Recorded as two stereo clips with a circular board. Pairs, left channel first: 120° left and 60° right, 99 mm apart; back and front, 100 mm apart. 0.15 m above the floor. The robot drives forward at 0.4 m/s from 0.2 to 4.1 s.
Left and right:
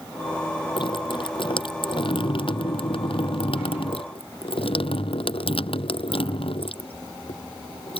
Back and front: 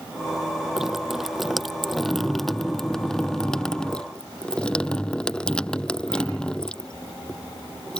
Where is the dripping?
85° left; by 8.0 s 100° left.